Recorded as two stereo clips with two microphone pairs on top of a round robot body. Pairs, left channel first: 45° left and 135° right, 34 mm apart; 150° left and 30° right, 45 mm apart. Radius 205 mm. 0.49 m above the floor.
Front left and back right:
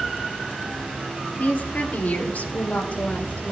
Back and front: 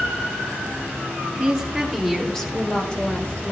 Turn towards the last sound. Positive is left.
turn(degrees=90)